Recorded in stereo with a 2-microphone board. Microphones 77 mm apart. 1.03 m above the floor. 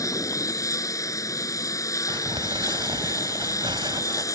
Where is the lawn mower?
45° left (ahead or behind).